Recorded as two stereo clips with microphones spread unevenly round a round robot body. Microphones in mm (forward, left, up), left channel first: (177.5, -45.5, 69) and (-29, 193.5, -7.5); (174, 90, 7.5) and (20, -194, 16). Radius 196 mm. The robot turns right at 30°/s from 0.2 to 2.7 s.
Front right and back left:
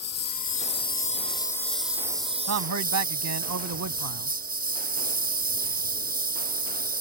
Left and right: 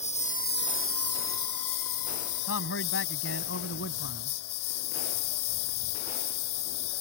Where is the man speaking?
110° left; by 4.3 s 115° left.